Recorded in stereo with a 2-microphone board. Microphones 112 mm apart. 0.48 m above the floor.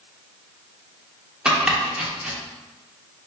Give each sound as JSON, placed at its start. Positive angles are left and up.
{"t": 1.4, "sound": "chopping", "side_deg": -10, "distance_m": 0.5}